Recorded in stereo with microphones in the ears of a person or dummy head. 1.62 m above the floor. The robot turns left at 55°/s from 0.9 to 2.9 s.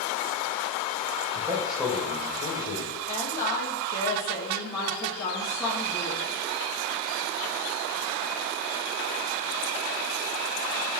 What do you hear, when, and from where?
1.4 s a man speaking: 155° right, 1.3 m; by 3.0 s 120° left, 1.3 m
3.1 s a woman speaking: 25° left (ahead or behind), 1.7 m